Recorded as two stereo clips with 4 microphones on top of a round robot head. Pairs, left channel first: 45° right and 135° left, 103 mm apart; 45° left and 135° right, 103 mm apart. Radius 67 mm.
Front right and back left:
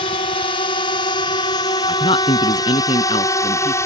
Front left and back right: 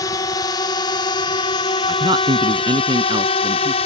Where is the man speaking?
85° right.